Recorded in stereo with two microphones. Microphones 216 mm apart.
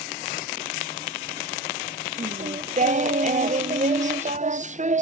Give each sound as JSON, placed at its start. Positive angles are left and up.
{"t": 2.2, "sound": "singing", "side_deg": -35, "distance_m": 0.6}